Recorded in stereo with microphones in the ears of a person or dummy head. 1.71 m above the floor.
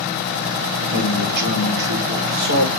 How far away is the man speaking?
About 4.5 m.